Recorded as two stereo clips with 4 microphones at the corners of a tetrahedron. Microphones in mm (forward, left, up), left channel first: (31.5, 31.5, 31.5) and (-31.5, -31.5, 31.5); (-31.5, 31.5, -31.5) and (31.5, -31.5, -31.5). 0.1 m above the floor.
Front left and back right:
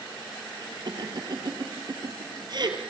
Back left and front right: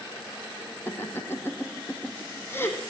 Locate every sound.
0.9 s laughter: 165° right, 2.5 m